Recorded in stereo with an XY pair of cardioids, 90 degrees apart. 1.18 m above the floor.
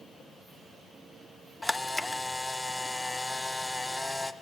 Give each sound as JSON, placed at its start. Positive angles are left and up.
{"t": 1.6, "sound": "a camera shutter", "azimuth_deg": 10, "distance_m": 0.7}